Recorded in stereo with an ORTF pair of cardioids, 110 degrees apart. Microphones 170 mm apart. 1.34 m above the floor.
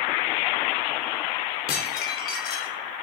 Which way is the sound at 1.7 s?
70° left.